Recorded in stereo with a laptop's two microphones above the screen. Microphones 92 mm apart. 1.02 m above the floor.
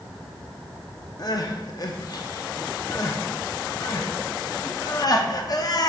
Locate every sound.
1.2 s crying: 45° left (ahead or behind), 0.6 m